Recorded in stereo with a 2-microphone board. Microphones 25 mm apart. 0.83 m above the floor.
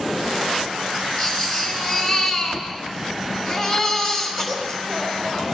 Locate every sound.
1.2 s a baby crying: 10° left (ahead or behind), 3 m